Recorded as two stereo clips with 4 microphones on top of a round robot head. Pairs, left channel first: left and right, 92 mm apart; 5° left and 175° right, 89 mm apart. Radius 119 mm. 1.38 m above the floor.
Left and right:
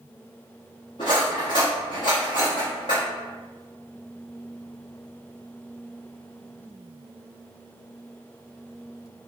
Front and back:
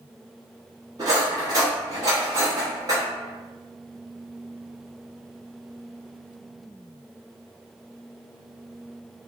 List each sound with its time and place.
1.0 s cutlery clinking: 145° left, 0.9 m